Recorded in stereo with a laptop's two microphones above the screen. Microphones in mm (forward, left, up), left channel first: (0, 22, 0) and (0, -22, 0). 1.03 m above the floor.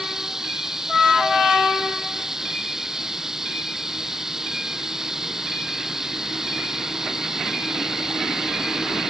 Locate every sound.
0.0 s running water: 10° right (ahead or behind)